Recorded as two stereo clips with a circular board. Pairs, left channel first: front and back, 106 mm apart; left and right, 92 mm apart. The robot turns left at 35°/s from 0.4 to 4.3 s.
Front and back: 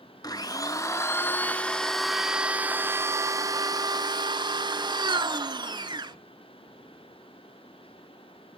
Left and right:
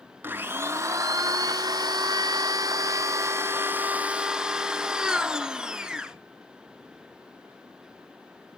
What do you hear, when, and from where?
0.2 s a blender: 30° right, 0.6 m; by 6.2 s 170° right, 0.6 m